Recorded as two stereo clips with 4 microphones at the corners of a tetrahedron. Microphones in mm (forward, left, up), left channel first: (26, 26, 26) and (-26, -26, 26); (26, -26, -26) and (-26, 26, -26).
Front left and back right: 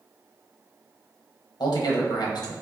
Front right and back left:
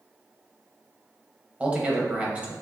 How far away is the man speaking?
About 0.8 m.